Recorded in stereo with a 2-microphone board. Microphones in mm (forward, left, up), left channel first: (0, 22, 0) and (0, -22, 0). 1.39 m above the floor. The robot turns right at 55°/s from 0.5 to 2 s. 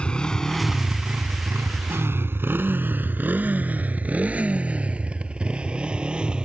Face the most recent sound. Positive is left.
turn(degrees=-20)  # may be behind; listen again after turning